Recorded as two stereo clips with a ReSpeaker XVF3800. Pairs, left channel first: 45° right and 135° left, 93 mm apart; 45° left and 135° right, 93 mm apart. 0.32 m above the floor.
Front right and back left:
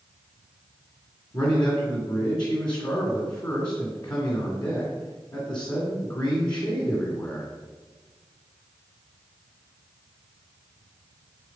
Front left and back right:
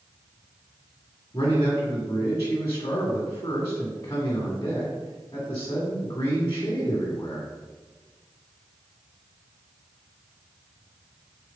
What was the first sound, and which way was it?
A man speaking, 10° right.